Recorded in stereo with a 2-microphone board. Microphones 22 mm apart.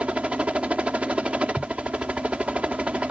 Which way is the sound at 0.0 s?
55° right (ahead or behind).